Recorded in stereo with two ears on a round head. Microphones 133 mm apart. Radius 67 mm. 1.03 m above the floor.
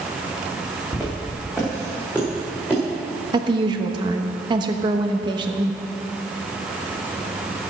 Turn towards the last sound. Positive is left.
turn(degrees=-30)  # may be behind; listen again after turning